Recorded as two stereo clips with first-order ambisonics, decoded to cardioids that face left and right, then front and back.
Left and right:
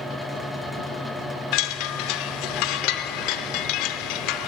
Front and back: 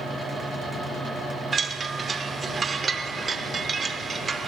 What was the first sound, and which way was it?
A chime, 110° left.